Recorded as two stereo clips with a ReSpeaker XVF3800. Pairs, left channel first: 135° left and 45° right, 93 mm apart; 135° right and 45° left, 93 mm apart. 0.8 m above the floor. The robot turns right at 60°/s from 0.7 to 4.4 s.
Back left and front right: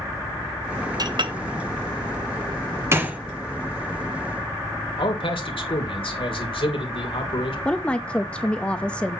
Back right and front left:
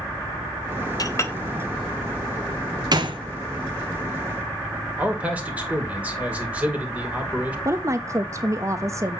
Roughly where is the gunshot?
Ahead.